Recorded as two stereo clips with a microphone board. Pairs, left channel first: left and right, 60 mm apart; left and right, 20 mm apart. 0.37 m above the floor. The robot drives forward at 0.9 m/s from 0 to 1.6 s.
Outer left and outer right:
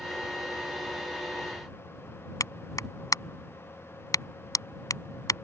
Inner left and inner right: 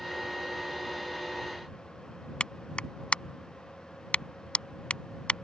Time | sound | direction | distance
2.4 | a clap | 70° left (ahead or behind) | ?